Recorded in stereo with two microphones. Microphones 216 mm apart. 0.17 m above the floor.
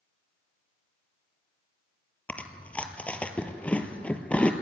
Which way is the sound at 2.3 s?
5° left (ahead or behind).